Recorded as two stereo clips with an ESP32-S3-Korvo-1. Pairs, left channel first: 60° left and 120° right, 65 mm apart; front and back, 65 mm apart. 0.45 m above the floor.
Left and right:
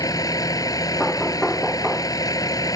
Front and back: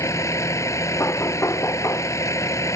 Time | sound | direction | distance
0.0 | a vehicle | 35° left | ?
1.0 | knocking | 20° right | ?